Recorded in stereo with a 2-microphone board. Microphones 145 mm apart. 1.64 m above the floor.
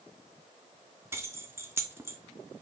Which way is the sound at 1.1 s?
15° right (ahead or behind).